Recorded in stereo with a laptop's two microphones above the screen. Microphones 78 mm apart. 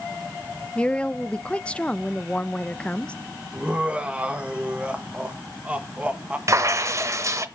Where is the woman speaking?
15° left (ahead or behind), 0.7 m.